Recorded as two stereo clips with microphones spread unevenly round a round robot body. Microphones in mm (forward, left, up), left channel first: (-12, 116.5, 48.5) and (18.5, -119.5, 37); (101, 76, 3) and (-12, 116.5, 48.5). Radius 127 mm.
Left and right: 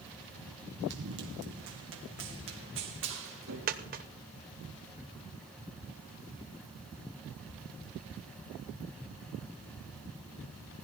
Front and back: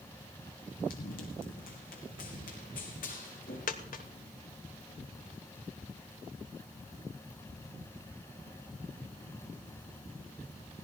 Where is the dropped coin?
25° right, 1.1 m.